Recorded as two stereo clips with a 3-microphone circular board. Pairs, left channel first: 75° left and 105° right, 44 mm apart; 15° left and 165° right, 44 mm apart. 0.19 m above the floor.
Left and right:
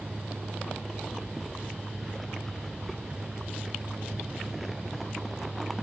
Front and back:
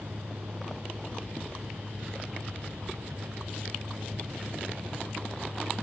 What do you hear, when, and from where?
0.0 s a vehicle: 165° right